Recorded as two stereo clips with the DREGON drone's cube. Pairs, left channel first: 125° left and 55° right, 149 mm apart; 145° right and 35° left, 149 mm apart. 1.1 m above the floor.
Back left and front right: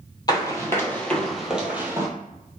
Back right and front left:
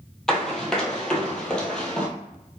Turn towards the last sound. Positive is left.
turn(degrees=-80)